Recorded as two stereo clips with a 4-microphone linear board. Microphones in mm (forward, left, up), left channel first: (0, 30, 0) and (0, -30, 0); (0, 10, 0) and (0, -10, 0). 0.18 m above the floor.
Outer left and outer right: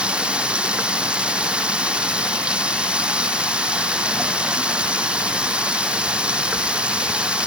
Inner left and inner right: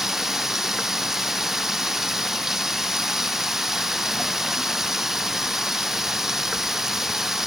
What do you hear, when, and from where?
0.0 s running water: 15° right (ahead or behind)